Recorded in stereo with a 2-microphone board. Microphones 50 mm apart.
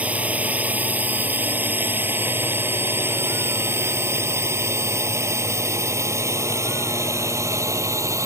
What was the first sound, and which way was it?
A drone, 30° right (ahead or behind).